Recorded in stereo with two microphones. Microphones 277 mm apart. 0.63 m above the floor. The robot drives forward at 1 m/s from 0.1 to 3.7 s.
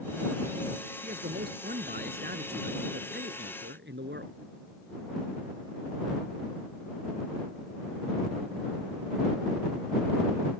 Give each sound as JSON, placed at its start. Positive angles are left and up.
{"t": 1.0, "sound": "a man speaking", "side_deg": -30}